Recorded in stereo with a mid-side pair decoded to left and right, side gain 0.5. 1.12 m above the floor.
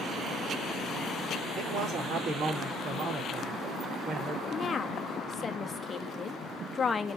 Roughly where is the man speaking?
Ahead right.